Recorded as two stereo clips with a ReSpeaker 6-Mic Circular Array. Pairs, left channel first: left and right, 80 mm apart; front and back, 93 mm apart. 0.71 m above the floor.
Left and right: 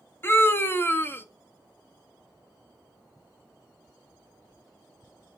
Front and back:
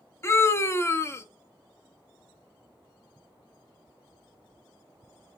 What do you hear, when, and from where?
0.2 s a scream: 45° left, 0.7 m